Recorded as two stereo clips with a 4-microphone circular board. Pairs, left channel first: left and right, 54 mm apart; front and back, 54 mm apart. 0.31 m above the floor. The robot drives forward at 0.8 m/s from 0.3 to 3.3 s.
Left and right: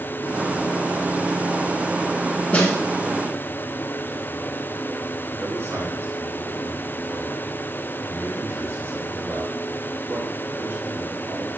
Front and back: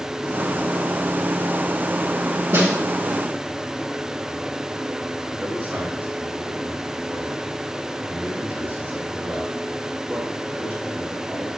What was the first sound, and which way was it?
A snare drum, 155° left.